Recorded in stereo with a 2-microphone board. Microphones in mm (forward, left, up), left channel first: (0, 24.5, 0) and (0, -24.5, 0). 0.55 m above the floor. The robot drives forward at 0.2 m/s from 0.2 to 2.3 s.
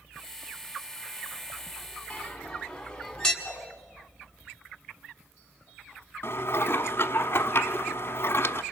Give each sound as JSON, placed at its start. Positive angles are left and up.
{"t": 2.1, "sound": "a bell", "side_deg": 15, "distance_m": 1.7}
{"t": 3.4, "sound": "a whoosh", "side_deg": 10, "distance_m": 6.0}
{"t": 6.2, "sound": "dishes clattering", "side_deg": 55, "distance_m": 0.9}